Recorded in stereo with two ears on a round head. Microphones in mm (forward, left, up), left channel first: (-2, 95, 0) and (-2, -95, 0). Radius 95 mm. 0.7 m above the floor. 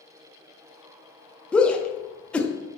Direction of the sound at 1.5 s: 5° left (ahead or behind).